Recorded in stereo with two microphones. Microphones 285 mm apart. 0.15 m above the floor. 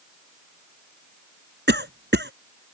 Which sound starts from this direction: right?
A cough, at 1.7 s.